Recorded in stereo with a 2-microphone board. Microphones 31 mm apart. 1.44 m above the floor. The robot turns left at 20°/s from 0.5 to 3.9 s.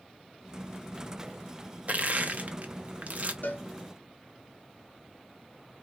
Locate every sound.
1.9 s crushing: 50° right (ahead or behind), 0.5 m
3.4 s a cowbell: 70° left (ahead or behind), 0.6 m; by 3.6 s 75° left (ahead or behind), 0.6 m